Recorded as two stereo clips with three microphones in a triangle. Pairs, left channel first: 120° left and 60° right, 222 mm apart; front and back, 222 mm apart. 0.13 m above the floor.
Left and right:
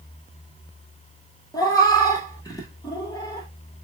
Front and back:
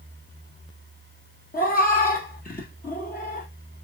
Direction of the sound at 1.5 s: 50° left.